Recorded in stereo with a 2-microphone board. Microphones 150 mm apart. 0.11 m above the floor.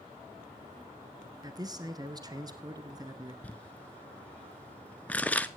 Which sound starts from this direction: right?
A man speaking, at 1.4 s.